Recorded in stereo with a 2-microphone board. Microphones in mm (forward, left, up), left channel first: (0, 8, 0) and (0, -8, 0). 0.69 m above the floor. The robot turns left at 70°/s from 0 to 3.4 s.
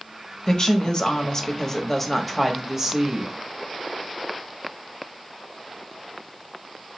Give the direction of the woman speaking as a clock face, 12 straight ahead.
8 o'clock.